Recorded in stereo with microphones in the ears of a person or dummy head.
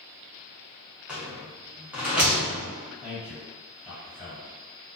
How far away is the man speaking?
About 1.8 m.